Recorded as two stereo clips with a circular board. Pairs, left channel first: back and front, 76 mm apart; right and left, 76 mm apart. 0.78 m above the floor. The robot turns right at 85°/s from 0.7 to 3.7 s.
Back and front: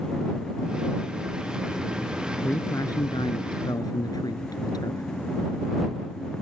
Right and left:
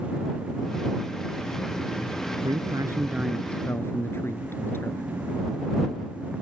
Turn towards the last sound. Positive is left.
turn(degrees=-150)